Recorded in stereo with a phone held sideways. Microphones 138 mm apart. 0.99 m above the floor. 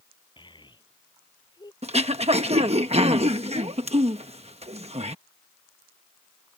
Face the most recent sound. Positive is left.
turn(degrees=-45)  # may be behind; listen again after turning